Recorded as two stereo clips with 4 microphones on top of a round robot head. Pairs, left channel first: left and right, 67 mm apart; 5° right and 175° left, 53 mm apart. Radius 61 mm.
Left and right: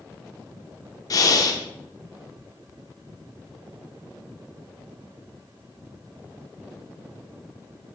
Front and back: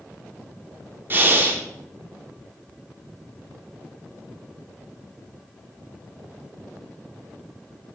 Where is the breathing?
120° left, 2 m.